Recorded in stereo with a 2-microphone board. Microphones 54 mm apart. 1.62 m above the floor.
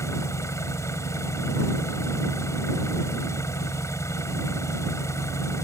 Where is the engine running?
65° left (ahead or behind).